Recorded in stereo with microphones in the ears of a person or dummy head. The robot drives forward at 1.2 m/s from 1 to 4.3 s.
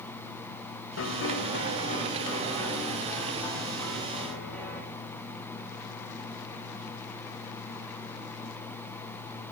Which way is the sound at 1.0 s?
80° left.